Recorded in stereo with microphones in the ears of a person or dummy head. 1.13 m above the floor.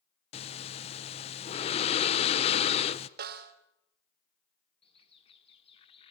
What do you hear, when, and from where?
0.3 s breathing: 30° left (ahead or behind), 0.7 m
3.2 s a snare drum: 55° right (ahead or behind), 1.8 m
4.8 s a bird: 25° left (ahead or behind), 1.4 m